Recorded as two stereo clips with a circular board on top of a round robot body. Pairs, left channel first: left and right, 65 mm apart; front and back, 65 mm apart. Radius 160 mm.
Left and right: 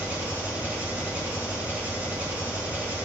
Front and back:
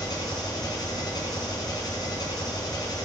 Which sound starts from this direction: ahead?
An engine running, at 0.0 s.